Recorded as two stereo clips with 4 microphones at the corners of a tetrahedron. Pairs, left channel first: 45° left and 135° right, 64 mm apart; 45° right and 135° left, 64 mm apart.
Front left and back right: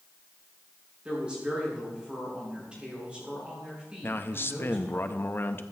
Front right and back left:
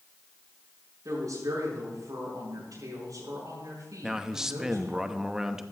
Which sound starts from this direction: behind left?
A woman speaking, at 1.1 s.